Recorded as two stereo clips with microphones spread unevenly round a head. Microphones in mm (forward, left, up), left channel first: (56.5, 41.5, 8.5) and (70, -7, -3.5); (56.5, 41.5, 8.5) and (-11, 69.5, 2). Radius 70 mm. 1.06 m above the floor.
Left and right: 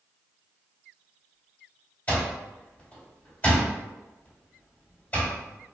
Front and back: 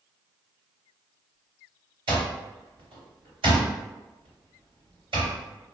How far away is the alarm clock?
About 1.4 m.